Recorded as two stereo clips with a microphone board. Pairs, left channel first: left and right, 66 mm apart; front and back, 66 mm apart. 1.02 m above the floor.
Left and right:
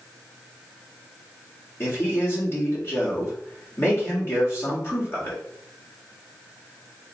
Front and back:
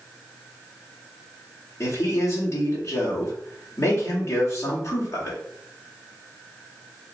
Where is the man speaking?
40° left, 2.0 m.